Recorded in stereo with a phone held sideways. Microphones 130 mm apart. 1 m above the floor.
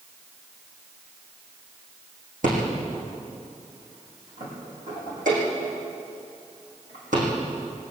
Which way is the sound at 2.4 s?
75° right (ahead or behind).